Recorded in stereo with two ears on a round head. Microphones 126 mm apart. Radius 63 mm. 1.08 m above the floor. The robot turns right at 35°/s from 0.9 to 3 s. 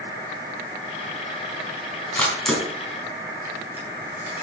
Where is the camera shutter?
15° left (ahead or behind), 4 m; by 4.4 s 15° right (ahead or behind), 4 m.